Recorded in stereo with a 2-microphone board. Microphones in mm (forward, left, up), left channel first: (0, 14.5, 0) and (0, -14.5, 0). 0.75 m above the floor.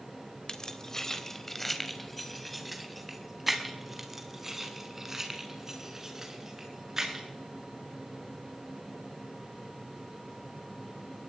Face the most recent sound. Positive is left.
turn(degrees=-15)  # may be behind; listen again after turning